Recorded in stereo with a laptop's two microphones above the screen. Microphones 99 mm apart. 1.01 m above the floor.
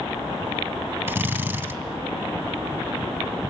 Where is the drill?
25° right (ahead or behind), 3 m.